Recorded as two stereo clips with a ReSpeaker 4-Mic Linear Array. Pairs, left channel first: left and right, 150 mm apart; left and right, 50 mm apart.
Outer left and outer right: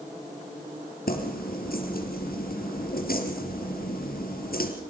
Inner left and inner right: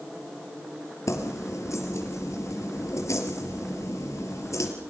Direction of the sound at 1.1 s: 80° left.